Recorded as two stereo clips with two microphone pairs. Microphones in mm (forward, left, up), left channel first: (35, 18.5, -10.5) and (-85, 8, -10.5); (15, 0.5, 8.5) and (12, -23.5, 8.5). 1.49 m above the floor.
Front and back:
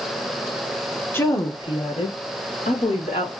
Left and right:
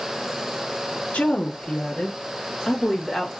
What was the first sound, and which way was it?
A woman speaking, 80° left.